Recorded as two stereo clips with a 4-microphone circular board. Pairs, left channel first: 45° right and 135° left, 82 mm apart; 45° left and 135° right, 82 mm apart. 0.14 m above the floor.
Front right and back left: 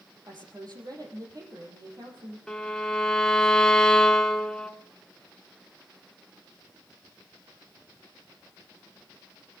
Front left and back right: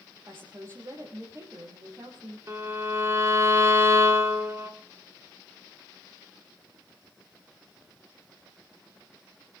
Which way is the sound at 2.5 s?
120° right.